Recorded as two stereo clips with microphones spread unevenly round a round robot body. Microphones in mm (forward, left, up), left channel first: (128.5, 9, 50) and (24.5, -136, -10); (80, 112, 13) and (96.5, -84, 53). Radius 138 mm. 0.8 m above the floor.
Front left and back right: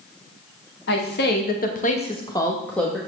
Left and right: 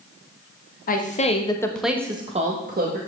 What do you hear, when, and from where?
0.9 s a woman speaking: 100° left, 1.5 m; by 3.0 s 45° right, 1.6 m